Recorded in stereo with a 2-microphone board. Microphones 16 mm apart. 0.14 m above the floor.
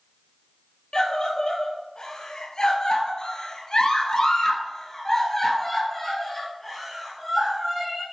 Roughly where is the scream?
Left.